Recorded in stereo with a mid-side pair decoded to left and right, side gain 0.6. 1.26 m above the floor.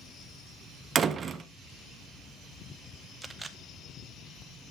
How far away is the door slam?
About 0.7 m.